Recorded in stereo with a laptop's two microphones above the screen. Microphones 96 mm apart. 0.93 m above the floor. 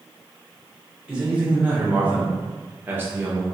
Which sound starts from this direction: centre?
A man speaking, at 1.1 s.